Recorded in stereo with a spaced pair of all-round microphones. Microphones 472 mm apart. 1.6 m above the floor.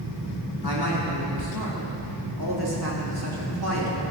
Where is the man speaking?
50° right (ahead or behind), 3 m.